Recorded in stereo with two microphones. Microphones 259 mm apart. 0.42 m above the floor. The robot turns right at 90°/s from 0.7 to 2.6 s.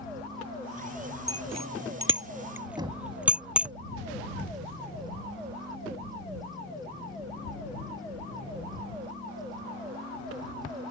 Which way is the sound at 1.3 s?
55° right (ahead or behind).